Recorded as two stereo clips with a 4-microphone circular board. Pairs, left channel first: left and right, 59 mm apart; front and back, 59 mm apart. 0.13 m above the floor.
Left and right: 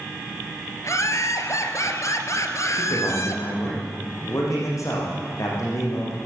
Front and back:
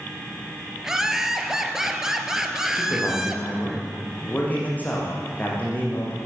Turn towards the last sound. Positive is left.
turn(degrees=60)